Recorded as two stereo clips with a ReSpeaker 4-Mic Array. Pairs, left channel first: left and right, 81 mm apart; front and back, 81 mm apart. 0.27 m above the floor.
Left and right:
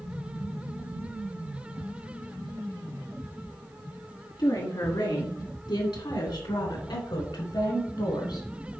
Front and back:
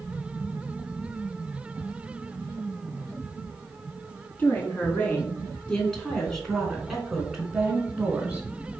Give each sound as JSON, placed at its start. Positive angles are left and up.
{"t": 4.4, "sound": "a woman speaking", "azimuth_deg": 65, "distance_m": 3.5}